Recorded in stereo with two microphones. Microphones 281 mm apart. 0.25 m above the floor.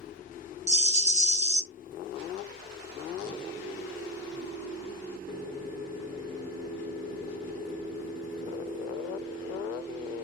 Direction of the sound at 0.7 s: 25° right (ahead or behind).